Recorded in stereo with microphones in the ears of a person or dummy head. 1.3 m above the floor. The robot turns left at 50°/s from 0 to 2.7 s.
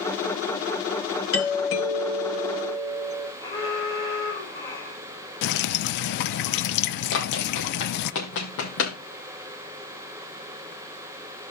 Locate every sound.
1.3 s a doorbell: 110° left, 1.9 m; by 3.3 s 40° left, 1.9 m
3.4 s an alarm: 15° left (ahead or behind), 8 m
5.4 s dripping: 60° left (ahead or behind), 0.7 m
7.1 s running footsteps: 60° left (ahead or behind), 3 m; by 8.9 s 70° left (ahead or behind), 3.5 m